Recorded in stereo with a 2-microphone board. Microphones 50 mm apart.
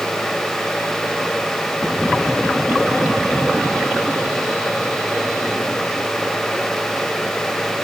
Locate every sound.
Only background noise.